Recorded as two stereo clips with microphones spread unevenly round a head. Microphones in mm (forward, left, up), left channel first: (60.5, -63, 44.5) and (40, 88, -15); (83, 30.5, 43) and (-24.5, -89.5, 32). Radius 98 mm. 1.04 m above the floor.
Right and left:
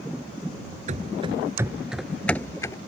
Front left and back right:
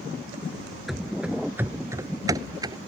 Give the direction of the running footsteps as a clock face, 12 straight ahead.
8 o'clock.